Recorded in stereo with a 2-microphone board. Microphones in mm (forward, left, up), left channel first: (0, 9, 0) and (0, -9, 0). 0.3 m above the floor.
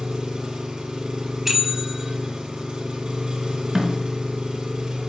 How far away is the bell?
About 1.0 m.